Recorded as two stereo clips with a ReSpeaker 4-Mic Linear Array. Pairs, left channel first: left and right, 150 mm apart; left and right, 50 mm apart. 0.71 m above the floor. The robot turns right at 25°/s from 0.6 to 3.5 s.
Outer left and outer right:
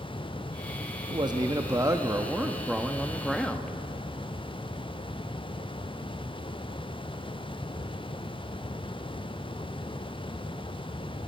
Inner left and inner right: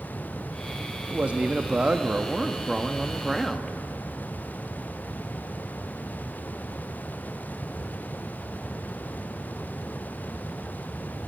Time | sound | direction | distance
1.1 | a man speaking | 50° right | 0.6 m